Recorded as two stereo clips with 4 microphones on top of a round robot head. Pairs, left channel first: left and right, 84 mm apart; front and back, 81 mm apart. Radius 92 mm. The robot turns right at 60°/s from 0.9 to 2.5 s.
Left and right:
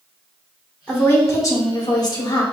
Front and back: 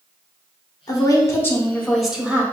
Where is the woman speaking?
20° left, 1.3 m; by 2.4 s 115° left, 1.3 m.